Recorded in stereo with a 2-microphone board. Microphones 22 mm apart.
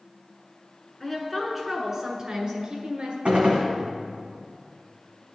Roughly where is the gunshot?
Right.